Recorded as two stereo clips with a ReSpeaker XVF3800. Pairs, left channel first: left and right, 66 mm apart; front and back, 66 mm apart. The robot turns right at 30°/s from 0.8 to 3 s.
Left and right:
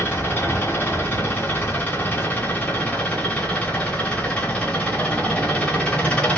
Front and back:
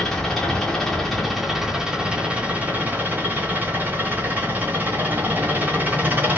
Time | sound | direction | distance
0.0 | an engine running | 80° left | 1.1 m